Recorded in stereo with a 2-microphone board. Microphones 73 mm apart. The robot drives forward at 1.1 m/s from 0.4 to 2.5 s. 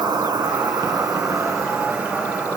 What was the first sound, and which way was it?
An insect, 70° right (ahead or behind).